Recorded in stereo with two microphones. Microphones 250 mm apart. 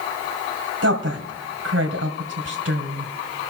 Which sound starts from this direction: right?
A woman speaking, at 0.8 s.